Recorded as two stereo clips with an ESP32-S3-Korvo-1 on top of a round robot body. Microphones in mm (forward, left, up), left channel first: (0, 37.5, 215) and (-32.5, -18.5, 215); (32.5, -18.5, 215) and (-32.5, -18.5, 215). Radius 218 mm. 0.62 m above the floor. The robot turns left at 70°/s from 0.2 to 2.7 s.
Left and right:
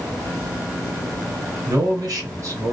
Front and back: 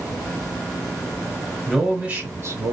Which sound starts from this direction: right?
A man speaking, at 1.7 s.